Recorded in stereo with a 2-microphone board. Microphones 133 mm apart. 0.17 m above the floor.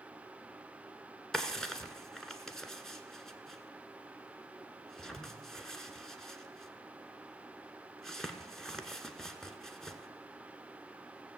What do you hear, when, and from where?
1.3 s a drawer: 5° left (ahead or behind), 1.1 m